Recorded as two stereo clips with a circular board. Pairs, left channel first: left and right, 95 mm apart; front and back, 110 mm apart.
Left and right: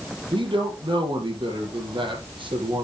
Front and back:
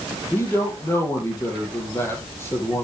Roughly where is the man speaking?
Ahead right.